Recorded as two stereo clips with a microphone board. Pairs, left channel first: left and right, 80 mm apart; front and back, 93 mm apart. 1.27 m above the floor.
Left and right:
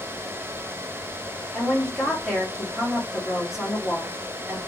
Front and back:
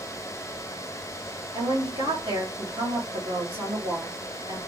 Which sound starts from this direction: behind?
A woman speaking, at 1.5 s.